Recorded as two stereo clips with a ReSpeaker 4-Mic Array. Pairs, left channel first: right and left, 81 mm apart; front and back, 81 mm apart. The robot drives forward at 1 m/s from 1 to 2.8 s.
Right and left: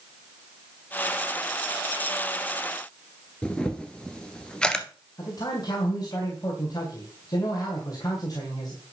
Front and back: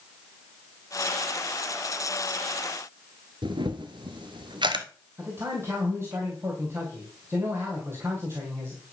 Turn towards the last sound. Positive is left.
turn(degrees=-125)